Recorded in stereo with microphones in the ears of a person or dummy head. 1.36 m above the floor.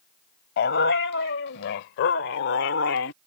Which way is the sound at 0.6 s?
60° left (ahead or behind).